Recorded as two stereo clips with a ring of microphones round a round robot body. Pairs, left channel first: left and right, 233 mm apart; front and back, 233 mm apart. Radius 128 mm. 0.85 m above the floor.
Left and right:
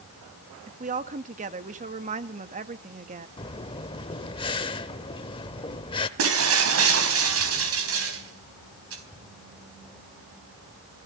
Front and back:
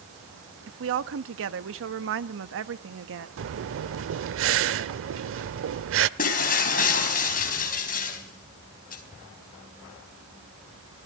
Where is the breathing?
160° left, 0.8 m.